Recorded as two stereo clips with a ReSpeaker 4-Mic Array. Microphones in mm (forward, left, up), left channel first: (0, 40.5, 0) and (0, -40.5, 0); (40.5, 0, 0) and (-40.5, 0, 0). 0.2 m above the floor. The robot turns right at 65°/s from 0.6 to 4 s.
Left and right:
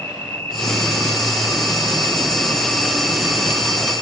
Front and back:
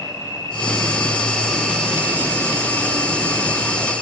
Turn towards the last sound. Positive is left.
turn(degrees=-110)